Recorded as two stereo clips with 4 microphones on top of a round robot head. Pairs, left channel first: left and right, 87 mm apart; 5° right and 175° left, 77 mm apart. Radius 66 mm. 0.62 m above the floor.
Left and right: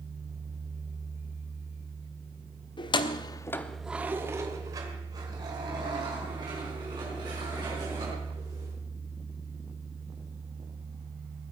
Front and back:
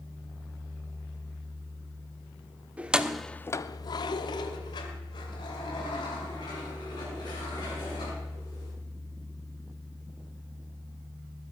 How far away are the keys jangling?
About 1.3 m.